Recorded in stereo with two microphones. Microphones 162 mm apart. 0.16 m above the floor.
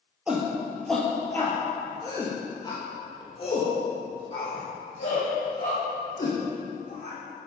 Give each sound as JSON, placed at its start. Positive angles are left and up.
{"t": 0.3, "sound": "a shout", "side_deg": -5, "distance_m": 3.5}